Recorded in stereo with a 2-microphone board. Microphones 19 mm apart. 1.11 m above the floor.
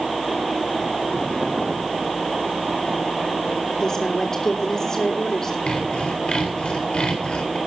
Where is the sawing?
60° left (ahead or behind), 4 m.